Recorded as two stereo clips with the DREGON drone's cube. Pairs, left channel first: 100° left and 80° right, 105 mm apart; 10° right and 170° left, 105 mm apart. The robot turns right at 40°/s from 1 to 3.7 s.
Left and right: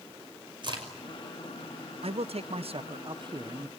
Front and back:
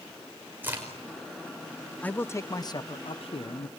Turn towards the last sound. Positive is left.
turn(degrees=-20)